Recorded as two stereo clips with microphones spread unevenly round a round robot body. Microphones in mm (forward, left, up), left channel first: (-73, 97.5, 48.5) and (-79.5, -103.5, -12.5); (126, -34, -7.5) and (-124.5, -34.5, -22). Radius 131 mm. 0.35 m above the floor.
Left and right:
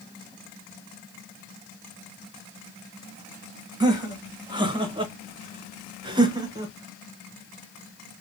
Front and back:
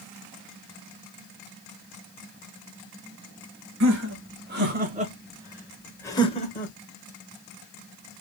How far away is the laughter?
About 1.7 m.